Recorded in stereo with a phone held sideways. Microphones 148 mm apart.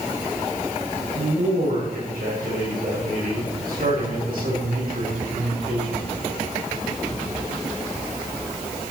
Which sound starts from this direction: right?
A man speaking, at 1.1 s.